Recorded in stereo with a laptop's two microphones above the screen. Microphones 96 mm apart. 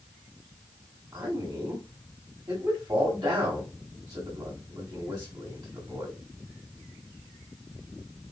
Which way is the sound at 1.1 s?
45° right (ahead or behind).